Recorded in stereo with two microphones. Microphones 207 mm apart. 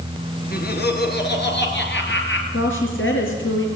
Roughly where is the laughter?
Left.